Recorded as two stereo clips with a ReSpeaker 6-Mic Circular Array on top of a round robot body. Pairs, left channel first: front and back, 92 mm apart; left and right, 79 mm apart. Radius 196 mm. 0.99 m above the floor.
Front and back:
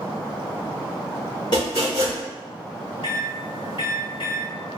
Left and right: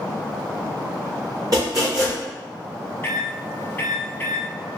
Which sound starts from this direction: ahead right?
Chopping, at 1.5 s.